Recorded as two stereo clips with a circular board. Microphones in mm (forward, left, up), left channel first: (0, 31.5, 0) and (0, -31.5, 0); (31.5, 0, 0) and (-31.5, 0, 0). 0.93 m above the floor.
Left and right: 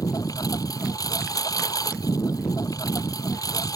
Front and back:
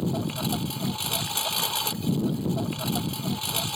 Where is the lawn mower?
85° left.